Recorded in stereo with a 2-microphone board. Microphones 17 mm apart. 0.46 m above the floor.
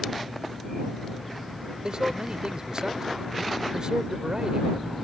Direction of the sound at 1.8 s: 50° right (ahead or behind).